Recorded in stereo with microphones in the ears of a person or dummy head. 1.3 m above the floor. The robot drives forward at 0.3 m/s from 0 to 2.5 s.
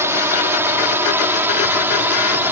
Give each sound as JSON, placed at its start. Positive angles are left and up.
{"t": 0.0, "sound": "a drone", "side_deg": -15}